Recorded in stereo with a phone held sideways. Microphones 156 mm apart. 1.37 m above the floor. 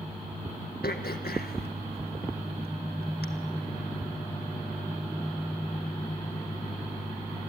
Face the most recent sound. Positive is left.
turn(degrees=80)